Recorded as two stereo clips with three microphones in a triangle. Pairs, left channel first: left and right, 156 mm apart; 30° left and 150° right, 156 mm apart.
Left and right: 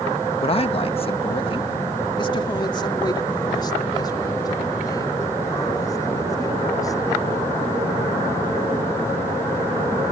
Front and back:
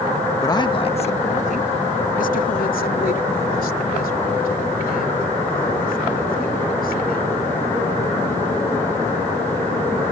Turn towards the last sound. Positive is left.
turn(degrees=25)